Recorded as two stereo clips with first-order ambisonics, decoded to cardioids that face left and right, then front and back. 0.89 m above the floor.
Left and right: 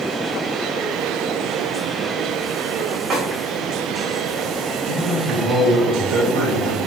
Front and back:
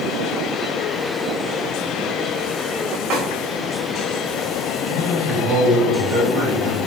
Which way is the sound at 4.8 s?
135° right.